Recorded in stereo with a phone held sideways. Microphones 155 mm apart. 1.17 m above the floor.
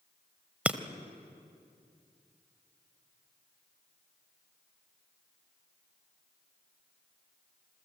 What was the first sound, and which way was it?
Breaking glass, 10° right (ahead or behind).